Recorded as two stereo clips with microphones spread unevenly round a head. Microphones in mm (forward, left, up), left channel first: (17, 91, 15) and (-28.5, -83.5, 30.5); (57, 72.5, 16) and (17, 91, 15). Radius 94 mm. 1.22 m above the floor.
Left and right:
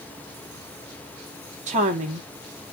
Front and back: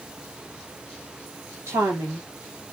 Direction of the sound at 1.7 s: 160° right.